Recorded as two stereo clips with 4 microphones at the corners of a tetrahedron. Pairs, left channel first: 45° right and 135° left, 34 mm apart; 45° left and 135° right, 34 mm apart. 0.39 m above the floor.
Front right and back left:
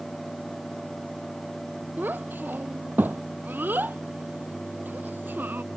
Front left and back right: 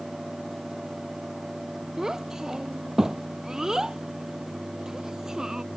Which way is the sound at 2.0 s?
150° left.